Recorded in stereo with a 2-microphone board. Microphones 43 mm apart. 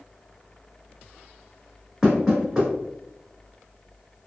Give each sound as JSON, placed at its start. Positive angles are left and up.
{"t": 2.0, "sound": "knocking", "side_deg": -10, "distance_m": 1.3}